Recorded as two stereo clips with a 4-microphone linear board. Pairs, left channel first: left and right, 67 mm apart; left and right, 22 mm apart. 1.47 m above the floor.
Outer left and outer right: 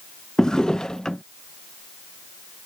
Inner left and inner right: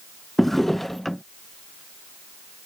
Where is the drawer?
10° left (ahead or behind).